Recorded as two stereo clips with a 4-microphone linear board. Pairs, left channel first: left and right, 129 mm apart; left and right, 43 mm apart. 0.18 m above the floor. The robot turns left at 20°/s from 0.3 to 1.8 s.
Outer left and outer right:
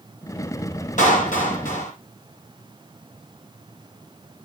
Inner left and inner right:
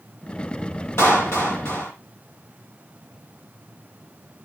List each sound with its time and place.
1.0 s a clap: 75° left (ahead or behind), 4.5 m